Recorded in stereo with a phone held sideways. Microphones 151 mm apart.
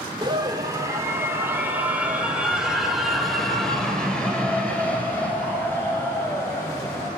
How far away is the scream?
About 3 m.